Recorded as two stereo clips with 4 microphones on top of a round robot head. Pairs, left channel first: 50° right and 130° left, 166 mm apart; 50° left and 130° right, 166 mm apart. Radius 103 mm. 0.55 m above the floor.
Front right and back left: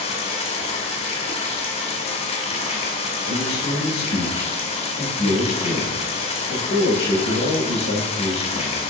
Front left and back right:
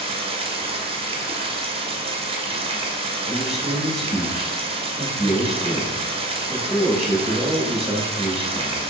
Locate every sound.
0.0 s running water: 85° right, 1.1 m
3.3 s a man speaking: 40° right, 2.5 m